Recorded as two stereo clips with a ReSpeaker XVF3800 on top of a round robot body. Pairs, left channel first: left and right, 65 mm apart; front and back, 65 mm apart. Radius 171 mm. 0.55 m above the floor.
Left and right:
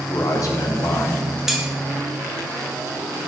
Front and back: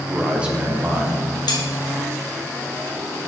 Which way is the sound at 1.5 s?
5° right.